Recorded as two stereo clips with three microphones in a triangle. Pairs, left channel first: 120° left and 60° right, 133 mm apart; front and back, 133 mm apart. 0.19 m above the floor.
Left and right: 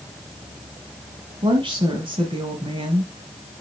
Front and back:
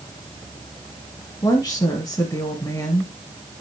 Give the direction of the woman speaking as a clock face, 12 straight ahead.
1 o'clock.